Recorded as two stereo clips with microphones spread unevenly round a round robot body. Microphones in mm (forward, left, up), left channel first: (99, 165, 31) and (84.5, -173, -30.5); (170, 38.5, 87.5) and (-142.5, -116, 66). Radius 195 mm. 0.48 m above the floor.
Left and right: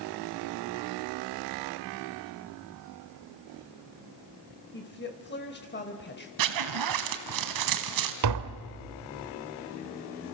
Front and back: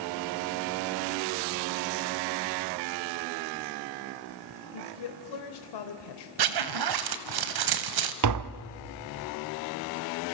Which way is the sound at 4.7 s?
25° left.